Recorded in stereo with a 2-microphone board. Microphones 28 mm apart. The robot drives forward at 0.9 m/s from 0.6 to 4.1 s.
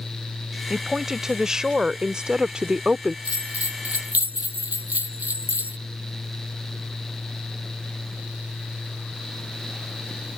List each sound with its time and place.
0.7 s a woman speaking: 15° right (ahead or behind); by 3.1 s 30° right (ahead or behind)
3.2 s a bell: 65° right (ahead or behind); by 5.8 s 75° right (ahead or behind)